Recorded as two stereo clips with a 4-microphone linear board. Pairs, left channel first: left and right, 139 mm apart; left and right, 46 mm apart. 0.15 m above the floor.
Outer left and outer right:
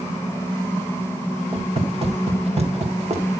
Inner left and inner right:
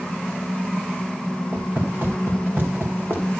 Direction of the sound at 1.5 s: 40° right (ahead or behind).